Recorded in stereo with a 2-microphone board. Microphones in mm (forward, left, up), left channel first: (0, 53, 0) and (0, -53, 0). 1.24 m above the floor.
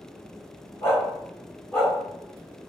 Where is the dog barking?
35° left (ahead or behind), 1.2 m; by 1.9 s 10° left (ahead or behind), 1.2 m.